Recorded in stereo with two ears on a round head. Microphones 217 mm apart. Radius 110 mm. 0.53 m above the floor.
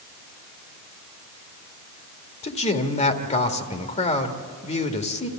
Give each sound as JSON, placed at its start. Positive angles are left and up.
{"t": 2.4, "sound": "a man speaking", "side_deg": 30, "distance_m": 1.7}